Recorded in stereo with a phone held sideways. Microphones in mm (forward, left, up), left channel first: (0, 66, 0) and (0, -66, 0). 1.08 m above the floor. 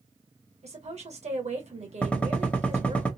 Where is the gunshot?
10° left (ahead or behind), 0.9 m.